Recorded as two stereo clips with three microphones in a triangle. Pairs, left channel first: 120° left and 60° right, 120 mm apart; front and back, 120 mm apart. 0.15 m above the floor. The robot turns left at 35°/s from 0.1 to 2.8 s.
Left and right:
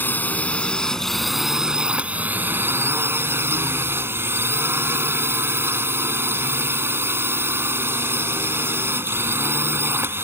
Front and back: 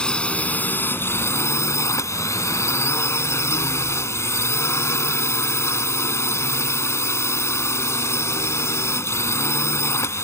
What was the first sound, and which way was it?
A drone, 70° left.